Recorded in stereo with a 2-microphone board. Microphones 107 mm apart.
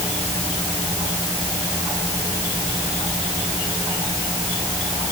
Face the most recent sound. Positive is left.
No sound to turn to.